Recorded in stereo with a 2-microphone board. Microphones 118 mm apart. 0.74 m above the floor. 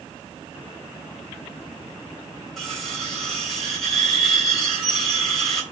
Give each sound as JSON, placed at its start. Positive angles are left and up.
{"t": 2.6, "sound": "cutlery clinking", "side_deg": 5, "distance_m": 2.5}